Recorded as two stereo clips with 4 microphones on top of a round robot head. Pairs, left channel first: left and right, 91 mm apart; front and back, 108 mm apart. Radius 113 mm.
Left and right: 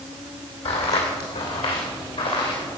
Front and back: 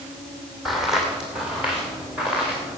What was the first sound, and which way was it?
Footsteps, 95° left.